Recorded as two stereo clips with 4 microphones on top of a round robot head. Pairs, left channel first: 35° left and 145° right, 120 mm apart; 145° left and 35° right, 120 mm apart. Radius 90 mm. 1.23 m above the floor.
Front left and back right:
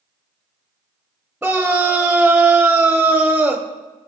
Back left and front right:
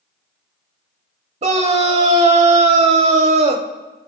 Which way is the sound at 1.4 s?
60° right.